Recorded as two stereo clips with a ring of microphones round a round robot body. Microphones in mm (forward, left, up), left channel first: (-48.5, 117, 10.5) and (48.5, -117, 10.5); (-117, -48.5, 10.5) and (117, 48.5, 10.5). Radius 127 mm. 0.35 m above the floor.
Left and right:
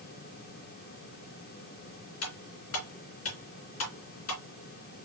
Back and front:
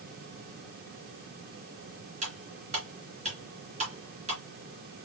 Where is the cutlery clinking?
85° left, 2.5 m.